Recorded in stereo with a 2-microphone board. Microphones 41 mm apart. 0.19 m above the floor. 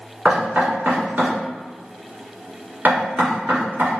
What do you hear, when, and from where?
0.2 s knocking: 45° right (ahead or behind), 1.9 m